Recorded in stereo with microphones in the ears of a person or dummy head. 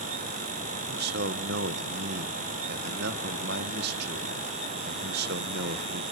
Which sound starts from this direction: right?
A man speaking, at 0.9 s.